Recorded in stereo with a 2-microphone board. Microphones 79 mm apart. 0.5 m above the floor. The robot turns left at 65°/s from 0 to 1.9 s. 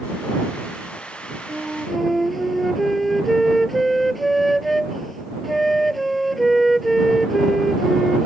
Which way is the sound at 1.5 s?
25° right (ahead or behind).